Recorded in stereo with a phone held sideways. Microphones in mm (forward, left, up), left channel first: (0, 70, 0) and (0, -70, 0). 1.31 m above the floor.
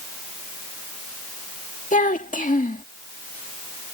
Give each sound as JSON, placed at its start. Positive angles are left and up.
{"t": 1.9, "sound": "a child speaking", "side_deg": 70}